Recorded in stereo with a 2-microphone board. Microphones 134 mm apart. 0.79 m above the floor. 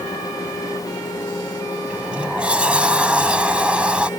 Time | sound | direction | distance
1.9 | a sliding door | 5° right (ahead or behind) | ?